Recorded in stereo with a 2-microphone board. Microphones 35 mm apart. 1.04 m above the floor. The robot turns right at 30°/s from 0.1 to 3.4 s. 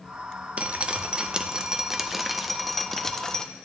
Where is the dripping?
60° right, 0.5 m; by 3.4 s 25° left, 0.5 m.